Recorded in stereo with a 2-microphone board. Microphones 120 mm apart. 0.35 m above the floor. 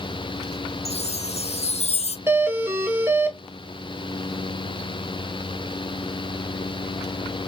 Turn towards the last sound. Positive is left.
turn(degrees=-15)  # may be behind; listen again after turning